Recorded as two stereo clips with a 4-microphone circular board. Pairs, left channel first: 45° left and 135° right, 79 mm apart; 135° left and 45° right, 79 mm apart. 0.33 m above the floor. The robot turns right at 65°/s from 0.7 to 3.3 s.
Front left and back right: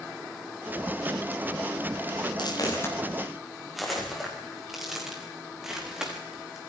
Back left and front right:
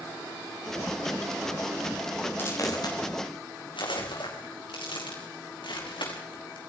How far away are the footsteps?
About 7 m.